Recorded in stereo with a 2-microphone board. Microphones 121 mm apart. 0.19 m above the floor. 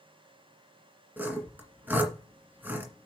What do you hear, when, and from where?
1.2 s sawing: 15° right (ahead or behind), 1.8 m